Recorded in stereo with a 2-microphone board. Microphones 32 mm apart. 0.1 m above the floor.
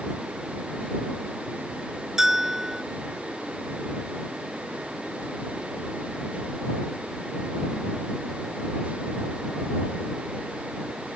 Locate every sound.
2.2 s a bell: 15° right (ahead or behind)